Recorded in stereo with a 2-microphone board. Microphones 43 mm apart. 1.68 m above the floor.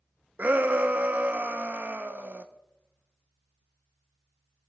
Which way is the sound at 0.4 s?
40° right (ahead or behind).